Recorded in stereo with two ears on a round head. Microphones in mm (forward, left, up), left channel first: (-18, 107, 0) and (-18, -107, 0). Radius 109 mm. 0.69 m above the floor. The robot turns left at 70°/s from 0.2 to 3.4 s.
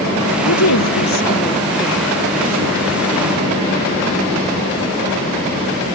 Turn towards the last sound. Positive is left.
turn(degrees=-100)